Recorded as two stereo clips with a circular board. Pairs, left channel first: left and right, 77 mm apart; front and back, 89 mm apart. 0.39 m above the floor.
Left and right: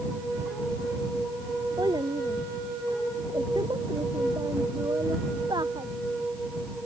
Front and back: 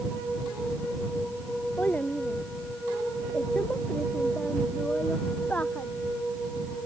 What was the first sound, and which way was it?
A child speaking, 70° right.